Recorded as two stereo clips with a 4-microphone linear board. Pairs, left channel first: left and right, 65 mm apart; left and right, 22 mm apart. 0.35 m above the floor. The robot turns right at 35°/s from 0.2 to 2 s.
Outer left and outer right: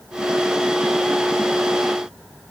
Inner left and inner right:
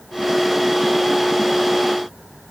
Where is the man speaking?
I don't hear a man speaking.